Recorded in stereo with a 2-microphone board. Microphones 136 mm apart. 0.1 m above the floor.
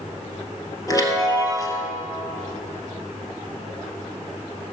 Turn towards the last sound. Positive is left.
turn(degrees=30)  # may be behind; listen again after turning